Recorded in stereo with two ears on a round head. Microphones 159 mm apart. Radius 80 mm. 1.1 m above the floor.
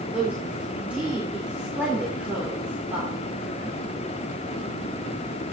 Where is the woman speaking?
10° right (ahead or behind), 3 m.